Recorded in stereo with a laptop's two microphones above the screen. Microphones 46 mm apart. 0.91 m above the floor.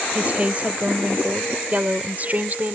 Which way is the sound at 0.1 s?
30° right (ahead or behind).